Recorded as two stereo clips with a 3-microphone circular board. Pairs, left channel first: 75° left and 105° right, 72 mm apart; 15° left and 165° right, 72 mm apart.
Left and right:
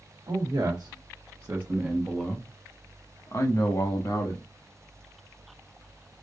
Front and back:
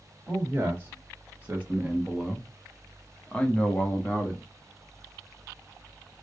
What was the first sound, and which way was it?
A man speaking, 105° right.